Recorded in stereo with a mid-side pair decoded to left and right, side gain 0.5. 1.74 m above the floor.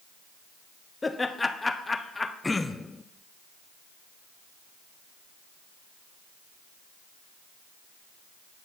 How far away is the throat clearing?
About 0.5 m.